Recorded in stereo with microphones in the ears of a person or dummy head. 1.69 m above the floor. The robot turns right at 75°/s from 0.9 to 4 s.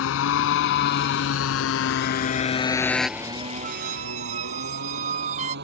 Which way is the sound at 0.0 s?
75° left (ahead or behind).